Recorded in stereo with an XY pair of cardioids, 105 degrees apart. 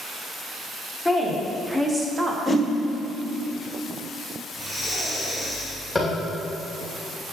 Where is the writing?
No writing in this recording.